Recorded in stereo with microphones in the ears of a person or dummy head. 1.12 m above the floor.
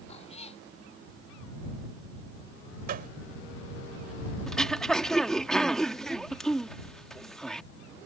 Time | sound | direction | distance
0.1 | a cat meowing | 40° left (ahead or behind) | ?
2.9 | a gunshot | 45° right (ahead or behind) | ?
4.5 | throat clearing | 10° left (ahead or behind) | ?